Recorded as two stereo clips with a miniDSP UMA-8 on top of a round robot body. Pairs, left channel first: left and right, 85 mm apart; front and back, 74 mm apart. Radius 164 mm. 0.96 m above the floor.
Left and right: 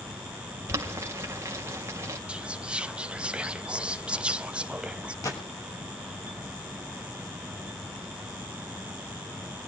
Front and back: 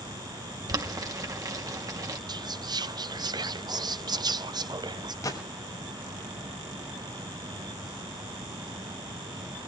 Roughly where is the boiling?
Behind right.